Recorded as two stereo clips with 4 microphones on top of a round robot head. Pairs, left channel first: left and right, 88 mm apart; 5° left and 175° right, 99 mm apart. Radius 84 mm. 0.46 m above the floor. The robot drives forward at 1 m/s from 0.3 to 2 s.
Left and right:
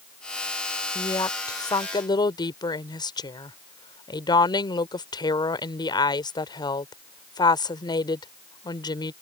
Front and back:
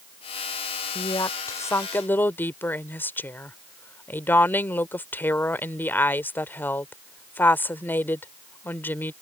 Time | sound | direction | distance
0.9 | a woman speaking | 45° left | ?